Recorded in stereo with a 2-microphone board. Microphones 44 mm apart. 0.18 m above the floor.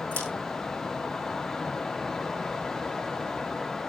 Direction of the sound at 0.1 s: 35° left (ahead or behind).